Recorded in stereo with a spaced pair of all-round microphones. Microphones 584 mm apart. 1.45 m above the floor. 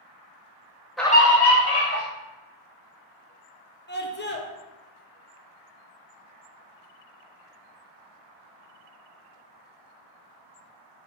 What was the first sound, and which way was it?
A scream, centre (ahead or behind).